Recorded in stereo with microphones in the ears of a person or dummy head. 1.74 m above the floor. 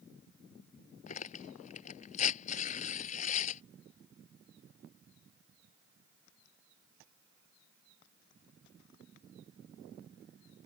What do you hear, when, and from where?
1.1 s tearing paper: 40° left (ahead or behind)